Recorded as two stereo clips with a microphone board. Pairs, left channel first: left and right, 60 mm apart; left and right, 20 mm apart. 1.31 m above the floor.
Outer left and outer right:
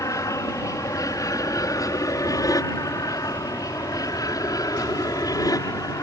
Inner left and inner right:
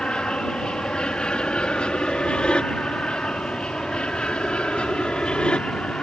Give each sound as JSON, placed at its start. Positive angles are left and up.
{"t": 0.0, "sound": "an aircraft", "side_deg": 60}